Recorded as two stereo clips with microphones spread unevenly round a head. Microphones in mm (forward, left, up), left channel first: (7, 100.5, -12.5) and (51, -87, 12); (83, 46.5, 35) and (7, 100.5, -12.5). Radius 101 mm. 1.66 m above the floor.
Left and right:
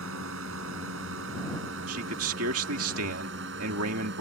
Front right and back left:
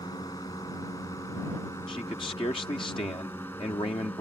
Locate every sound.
0.0 s a drone: 105° right; by 4.2 s 115° right
1.9 s a man speaking: 95° right